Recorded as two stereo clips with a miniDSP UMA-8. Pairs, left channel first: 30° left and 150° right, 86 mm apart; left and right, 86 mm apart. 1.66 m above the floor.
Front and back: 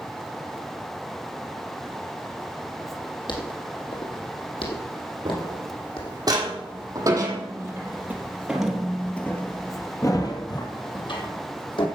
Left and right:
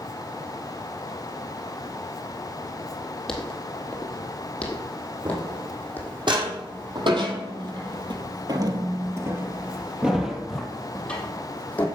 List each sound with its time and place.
3.3 s footsteps: 5° left, 4 m; by 6.2 s 20° left, 5 m
5.2 s footsteps: 115° right, 5.5 m; by 11.9 s 20° left, 4 m